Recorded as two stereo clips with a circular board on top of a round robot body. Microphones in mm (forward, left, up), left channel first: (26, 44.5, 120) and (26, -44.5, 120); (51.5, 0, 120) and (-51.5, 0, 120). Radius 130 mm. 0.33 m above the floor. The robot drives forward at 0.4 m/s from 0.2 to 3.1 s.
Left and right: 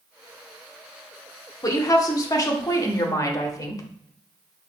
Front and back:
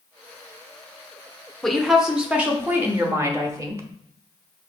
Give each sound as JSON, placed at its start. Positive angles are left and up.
{"t": 1.6, "sound": "a woman speaking", "azimuth_deg": 85, "distance_m": 1.1}